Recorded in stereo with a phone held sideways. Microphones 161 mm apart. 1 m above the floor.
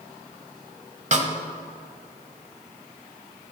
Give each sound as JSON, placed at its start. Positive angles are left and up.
{"t": 1.1, "sound": "a snare drum", "side_deg": -50, "distance_m": 1.1}